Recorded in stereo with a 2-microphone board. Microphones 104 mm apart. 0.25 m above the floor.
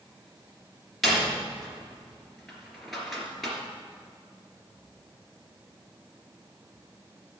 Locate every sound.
1.0 s a door slam: centre (ahead or behind), 2.5 m